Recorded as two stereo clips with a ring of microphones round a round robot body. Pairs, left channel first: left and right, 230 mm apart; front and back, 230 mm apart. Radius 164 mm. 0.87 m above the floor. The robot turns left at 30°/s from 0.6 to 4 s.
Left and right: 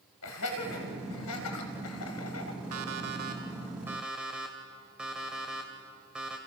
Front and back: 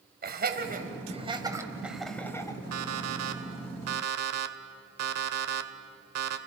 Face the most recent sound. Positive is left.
turn(degrees=-175)